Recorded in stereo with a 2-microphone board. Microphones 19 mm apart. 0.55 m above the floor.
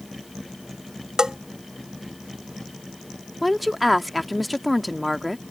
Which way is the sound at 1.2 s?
40° right (ahead or behind).